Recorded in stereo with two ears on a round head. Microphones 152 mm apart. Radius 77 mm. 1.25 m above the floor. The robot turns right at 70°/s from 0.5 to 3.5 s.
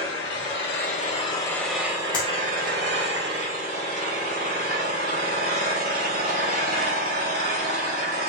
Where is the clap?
30° left (ahead or behind), 1.6 m; by 2.3 s 15° left (ahead or behind), 1.6 m.